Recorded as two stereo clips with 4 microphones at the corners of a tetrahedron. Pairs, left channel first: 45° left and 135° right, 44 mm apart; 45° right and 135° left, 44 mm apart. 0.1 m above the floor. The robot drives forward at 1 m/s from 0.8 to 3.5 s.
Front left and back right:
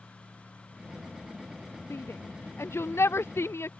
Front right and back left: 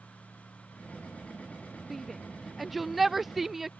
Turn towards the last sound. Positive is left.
turn(degrees=55)